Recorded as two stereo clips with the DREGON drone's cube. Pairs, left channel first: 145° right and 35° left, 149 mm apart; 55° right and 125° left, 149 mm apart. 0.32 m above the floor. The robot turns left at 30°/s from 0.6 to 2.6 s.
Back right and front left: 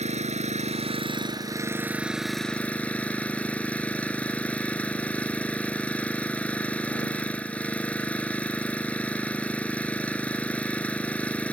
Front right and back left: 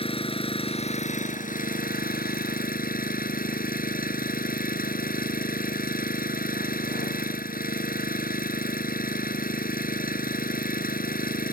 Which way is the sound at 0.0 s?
5° right.